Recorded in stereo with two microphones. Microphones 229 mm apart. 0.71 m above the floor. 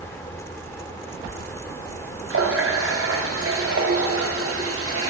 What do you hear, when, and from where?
2.3 s a running tap: 70° right (ahead or behind), 0.9 m